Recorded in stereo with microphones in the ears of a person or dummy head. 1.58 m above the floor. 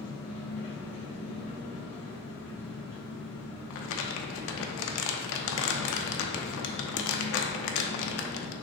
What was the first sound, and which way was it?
An engine running, 15° left (ahead or behind).